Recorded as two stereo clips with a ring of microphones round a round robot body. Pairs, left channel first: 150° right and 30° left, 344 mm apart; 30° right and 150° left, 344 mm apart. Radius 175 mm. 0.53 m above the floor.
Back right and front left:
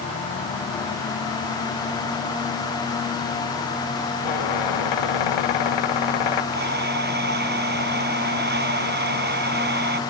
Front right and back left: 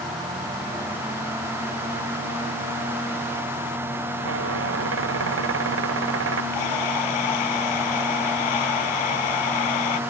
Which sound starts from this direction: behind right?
A squeak, at 4.2 s.